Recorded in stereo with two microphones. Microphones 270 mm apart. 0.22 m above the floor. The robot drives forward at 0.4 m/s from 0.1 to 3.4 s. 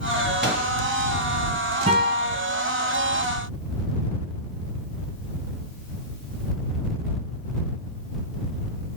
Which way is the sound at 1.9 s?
25° right (ahead or behind).